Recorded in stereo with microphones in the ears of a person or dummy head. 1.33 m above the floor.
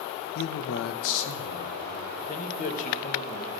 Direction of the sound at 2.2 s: 35° left (ahead or behind).